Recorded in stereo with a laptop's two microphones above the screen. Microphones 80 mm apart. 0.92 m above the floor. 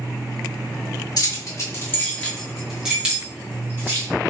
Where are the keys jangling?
55° left (ahead or behind), 0.8 m; by 4.1 s 30° right (ahead or behind), 1.3 m.